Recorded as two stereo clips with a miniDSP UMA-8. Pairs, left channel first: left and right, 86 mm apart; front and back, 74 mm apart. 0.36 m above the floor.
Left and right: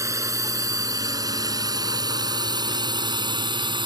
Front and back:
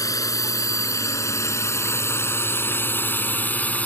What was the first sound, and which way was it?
A drone, 40° right.